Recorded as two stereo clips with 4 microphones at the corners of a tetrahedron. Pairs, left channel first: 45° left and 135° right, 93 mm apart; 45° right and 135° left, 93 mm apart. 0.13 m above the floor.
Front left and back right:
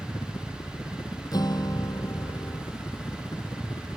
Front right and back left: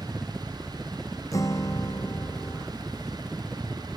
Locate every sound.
0.0 s a helicopter: 40° left
1.3 s a guitar: 5° left